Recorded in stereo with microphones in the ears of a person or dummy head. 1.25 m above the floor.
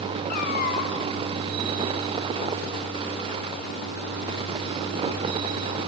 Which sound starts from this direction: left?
A cat meowing, at 0.3 s.